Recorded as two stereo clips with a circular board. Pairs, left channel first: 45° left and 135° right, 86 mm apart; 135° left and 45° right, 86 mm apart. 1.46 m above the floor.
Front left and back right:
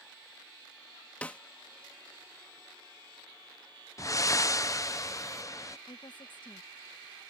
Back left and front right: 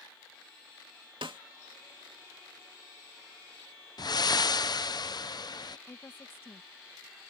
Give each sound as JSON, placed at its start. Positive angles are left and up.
{"t": 1.2, "sound": "a snare drum", "azimuth_deg": -30}
{"t": 4.0, "sound": "breathing", "azimuth_deg": 95}
{"t": 5.9, "sound": "a woman speaking", "azimuth_deg": 70}